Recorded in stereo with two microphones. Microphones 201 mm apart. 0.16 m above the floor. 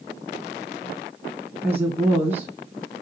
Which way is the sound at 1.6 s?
10° right (ahead or behind).